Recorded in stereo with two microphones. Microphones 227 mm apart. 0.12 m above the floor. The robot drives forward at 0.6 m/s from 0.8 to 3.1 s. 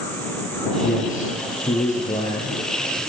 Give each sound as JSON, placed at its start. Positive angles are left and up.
{"t": 0.8, "sound": "a man speaking", "side_deg": 35, "distance_m": 4.5}